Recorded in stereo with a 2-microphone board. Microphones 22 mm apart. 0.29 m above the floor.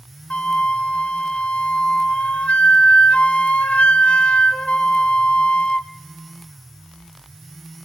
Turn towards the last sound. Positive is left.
turn(degrees=80)